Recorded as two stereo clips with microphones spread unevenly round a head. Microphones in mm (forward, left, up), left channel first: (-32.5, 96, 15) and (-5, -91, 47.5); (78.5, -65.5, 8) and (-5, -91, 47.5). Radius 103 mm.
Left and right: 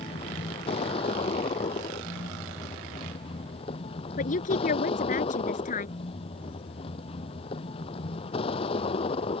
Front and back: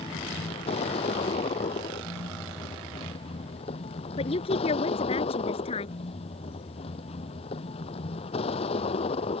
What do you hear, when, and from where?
0.0 s a vehicle: 35° left
4.2 s a woman speaking: 45° left